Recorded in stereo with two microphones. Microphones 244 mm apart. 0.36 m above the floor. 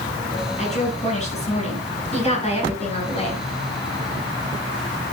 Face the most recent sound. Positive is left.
turn(degrees=25)  # may be behind; listen again after turning